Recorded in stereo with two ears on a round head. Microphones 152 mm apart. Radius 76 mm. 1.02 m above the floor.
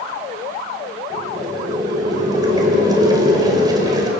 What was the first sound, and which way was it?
Boiling, 25° right (ahead or behind).